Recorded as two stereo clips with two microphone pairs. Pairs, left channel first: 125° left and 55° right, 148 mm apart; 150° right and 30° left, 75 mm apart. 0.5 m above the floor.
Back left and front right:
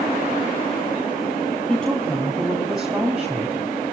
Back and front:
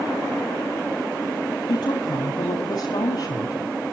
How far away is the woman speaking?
About 4 m.